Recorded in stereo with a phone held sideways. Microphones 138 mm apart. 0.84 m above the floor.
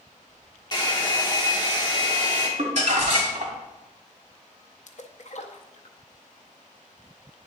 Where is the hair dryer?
30° left (ahead or behind), 1.2 m.